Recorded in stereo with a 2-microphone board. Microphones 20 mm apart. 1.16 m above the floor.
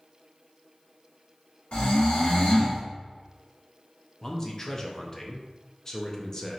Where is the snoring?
80° left, 1.4 m.